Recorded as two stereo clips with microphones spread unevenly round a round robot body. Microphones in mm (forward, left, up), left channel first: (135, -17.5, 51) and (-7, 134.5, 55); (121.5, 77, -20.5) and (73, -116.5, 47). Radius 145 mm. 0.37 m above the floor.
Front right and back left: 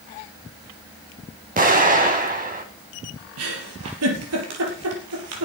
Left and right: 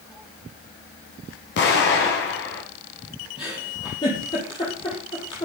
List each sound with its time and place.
1.6 s an explosion: 85° left, 3 m
3.4 s a giggle: 150° left, 3.5 m